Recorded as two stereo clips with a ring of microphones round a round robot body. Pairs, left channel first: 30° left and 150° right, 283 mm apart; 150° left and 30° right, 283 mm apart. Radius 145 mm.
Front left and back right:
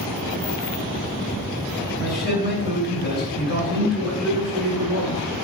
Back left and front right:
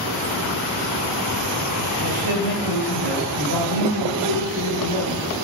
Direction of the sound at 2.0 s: 20° right.